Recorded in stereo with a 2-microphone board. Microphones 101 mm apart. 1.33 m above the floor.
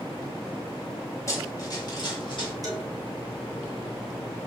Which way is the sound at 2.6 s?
40° right (ahead or behind).